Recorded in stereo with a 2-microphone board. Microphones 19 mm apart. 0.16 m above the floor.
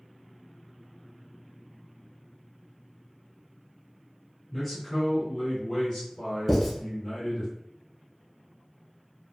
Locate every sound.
4.5 s a man speaking: 5° left (ahead or behind), 1.9 m; by 7.5 s 40° left (ahead or behind), 2 m
6.5 s writing: 10° left (ahead or behind), 1.3 m